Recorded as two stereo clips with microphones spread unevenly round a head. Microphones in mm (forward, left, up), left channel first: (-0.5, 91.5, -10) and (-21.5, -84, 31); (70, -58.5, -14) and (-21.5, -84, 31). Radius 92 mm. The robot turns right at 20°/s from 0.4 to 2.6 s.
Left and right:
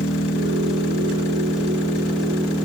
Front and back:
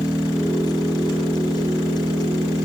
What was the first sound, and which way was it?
An engine running, 115° left.